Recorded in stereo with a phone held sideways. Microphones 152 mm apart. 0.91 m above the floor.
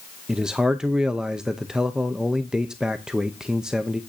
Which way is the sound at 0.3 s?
5° right (ahead or behind).